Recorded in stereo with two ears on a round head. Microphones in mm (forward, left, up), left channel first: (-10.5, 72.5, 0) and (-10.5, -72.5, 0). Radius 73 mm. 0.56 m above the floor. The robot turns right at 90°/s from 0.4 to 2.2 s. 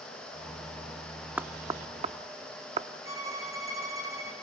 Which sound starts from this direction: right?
A violin, at 3.0 s.